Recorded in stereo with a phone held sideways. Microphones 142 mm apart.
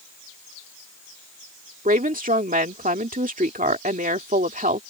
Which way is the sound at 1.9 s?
75° right (ahead or behind).